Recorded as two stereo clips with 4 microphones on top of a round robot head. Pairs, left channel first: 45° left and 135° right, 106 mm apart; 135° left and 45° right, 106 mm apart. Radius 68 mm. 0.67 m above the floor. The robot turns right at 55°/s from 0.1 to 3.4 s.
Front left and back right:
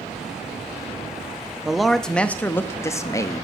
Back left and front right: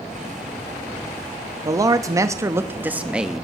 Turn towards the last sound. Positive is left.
turn(degrees=40)